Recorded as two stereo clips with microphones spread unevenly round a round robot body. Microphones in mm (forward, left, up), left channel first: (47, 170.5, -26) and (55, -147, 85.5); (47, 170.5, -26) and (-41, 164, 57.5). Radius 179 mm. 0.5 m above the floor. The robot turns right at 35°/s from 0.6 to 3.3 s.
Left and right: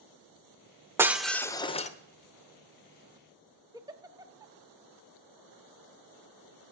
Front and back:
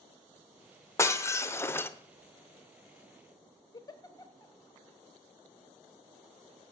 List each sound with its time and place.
1.0 s breaking glass: straight ahead, 0.8 m; by 1.9 s 35° left, 0.8 m
3.7 s a giggle: 5° right, 0.7 m